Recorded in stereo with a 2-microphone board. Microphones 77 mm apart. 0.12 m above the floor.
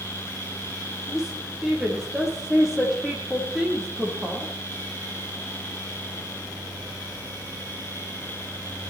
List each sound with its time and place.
1.1 s a woman speaking: 5° right (ahead or behind), 5 m